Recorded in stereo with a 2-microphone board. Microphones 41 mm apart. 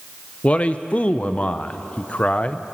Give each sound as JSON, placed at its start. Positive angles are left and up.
{"t": 0.4, "sound": "a man speaking", "side_deg": 30, "distance_m": 0.5}